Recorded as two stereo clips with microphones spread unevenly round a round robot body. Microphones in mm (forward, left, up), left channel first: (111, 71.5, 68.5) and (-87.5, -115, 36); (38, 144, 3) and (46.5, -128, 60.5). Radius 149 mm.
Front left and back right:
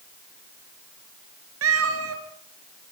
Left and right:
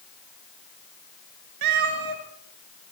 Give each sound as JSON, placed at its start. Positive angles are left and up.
{"t": 1.6, "sound": "a cat meowing", "azimuth_deg": -100, "distance_m": 2.5}